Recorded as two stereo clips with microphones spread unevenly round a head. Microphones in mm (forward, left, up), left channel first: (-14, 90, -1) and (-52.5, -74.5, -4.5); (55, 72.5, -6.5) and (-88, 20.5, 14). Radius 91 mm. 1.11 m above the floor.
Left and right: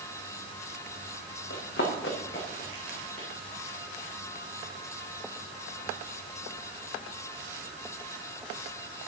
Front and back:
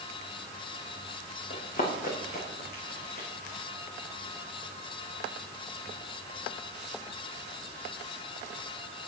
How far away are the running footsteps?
About 5 m.